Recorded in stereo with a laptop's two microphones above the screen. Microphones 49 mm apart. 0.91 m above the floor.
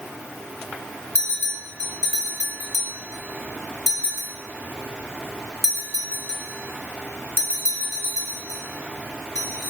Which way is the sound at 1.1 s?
75° left (ahead or behind).